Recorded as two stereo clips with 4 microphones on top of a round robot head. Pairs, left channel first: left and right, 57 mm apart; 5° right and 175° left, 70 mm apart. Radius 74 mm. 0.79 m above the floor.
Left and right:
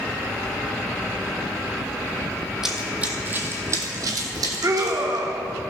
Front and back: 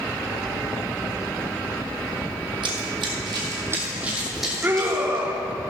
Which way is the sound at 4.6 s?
120° right.